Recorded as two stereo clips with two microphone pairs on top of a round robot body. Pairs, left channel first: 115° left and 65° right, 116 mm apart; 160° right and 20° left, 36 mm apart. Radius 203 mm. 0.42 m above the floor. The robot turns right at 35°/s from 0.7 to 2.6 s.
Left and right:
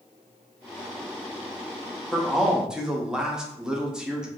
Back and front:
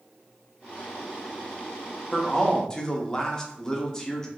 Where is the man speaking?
155° right, 1.0 m; by 4.3 s 140° right, 1.0 m.